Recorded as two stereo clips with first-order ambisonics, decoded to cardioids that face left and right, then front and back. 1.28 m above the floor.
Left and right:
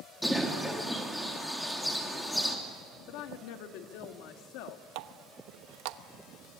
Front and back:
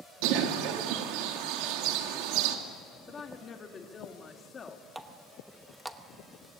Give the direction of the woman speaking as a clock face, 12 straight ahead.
10 o'clock.